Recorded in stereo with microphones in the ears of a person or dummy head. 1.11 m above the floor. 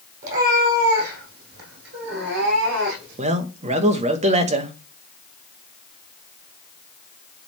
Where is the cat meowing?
45° right (ahead or behind), 4 m; by 3.2 s 75° right (ahead or behind), 4 m.